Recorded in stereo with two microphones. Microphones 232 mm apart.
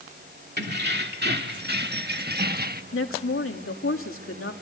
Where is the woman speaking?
65° left (ahead or behind), 2.5 m.